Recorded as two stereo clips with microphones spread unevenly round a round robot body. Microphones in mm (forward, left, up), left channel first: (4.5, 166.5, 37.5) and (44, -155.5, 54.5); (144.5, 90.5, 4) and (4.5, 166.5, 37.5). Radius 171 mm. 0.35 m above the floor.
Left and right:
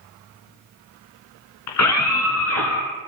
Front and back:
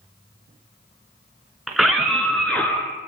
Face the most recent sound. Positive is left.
turn(degrees=50)